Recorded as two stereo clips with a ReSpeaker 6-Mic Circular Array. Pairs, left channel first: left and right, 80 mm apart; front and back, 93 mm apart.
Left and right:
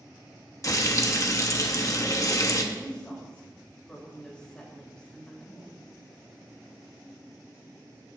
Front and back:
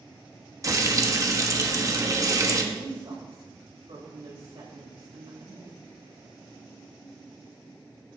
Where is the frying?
130° left, 0.9 m.